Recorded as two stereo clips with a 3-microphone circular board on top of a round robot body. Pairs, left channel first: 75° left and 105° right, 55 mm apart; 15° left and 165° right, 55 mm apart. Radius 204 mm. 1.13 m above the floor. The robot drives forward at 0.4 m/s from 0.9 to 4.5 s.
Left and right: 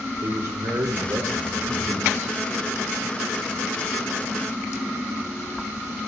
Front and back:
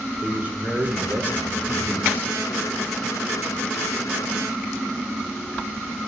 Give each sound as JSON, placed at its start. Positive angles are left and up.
{"t": 0.2, "sound": "a man speaking", "azimuth_deg": -105, "distance_m": 4.5}